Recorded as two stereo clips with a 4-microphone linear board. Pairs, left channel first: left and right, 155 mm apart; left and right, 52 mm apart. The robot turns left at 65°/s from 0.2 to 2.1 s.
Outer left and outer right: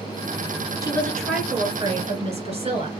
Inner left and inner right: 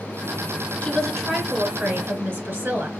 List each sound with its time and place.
0.8 s a woman speaking: 25° left, 2.5 m; by 2.9 s 55° right, 2.5 m